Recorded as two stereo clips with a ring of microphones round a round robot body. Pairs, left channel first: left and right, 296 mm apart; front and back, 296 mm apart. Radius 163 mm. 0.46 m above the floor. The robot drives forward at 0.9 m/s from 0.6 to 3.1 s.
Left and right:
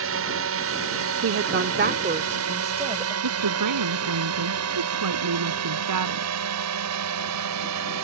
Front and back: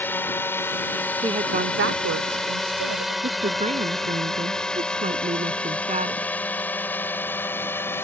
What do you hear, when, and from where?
0.0 s a drone: 80° right
1.2 s a woman speaking: 105° right; by 3.1 s 160° right
3.2 s a woman speaking: 115° right